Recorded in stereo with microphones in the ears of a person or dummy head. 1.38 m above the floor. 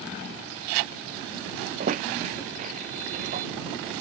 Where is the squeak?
45° right (ahead or behind).